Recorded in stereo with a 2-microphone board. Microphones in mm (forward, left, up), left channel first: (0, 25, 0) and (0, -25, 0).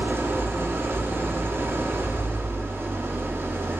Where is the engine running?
55° right (ahead or behind), 1.8 m.